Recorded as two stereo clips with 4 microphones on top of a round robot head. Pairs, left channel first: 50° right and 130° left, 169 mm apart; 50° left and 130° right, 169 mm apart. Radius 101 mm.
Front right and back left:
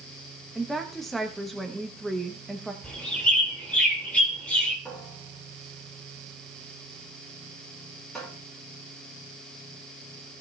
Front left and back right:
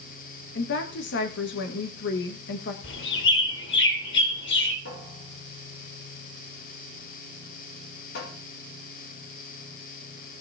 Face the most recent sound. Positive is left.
turn(degrees=40)